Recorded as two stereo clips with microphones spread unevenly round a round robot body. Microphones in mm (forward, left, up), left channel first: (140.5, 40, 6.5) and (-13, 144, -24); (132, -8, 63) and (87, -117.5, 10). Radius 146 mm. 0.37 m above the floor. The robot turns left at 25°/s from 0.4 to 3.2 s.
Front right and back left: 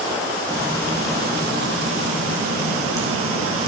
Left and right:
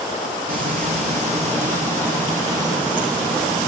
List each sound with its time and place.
0.5 s frying: 130° right, 2 m; by 3.7 s 160° left, 2 m